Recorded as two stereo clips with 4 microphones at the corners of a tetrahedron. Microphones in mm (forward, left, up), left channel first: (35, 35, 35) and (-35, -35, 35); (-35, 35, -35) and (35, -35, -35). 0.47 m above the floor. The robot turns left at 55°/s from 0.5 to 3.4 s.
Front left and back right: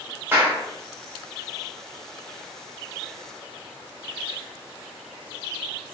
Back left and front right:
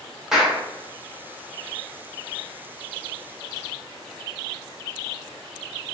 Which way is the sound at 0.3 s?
120° right.